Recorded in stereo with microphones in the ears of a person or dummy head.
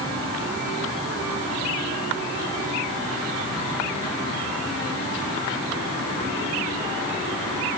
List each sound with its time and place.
Only background noise.